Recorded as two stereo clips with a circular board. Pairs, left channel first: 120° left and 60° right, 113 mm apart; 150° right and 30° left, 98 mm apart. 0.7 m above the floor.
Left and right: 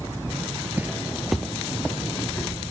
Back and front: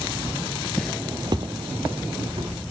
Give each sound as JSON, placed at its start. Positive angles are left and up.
{"t": 0.8, "sound": "footsteps", "azimuth_deg": -105, "distance_m": 0.7}